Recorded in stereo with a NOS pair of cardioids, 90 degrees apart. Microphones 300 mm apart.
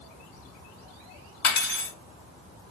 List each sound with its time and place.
1.4 s cutlery clinking: 45° left, 2 m